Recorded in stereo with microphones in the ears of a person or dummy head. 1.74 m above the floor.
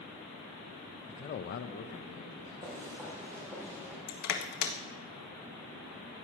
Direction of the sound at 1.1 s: 20° left (ahead or behind).